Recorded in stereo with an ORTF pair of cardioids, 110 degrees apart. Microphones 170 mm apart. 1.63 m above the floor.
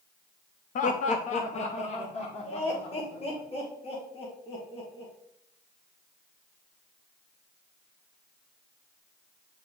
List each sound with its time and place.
0.8 s laughter: 50° left, 0.7 m; by 5.1 s 35° left, 3 m